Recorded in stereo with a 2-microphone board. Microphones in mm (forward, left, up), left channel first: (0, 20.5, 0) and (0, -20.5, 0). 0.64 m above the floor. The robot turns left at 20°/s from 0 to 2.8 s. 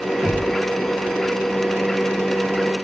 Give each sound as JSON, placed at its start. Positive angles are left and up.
{"t": 0.2, "sound": "knocking", "side_deg": -40, "distance_m": 7.0}